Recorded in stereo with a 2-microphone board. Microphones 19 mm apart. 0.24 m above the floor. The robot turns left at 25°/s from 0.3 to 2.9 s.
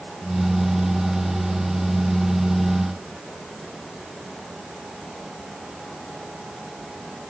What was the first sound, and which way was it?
Only background noise.